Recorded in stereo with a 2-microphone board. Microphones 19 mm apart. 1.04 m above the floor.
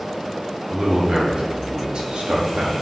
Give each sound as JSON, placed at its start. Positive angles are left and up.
{"t": 0.7, "sound": "a man speaking", "side_deg": -40, "distance_m": 2.5}